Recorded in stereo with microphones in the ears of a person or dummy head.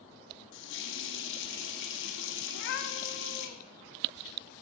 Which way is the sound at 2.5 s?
60° left (ahead or behind).